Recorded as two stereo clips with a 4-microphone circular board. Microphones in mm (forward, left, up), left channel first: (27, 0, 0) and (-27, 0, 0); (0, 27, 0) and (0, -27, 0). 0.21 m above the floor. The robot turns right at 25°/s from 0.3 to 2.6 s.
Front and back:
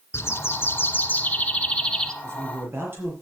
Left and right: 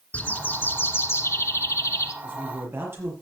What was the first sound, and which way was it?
A bird, 30° left.